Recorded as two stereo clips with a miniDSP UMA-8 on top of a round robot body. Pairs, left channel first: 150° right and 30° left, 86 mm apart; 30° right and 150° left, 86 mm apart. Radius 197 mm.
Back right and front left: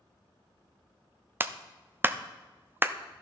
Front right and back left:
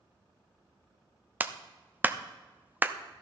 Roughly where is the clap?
Left.